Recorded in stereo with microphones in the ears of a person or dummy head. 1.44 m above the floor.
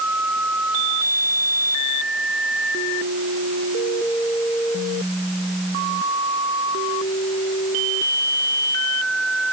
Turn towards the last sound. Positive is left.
No sound to turn to.